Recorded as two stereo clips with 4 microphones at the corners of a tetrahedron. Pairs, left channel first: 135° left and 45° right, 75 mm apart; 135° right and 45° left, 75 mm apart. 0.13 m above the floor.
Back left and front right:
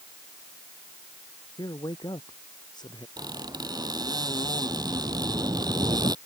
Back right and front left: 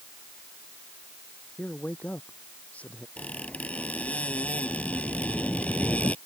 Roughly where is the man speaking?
Behind left.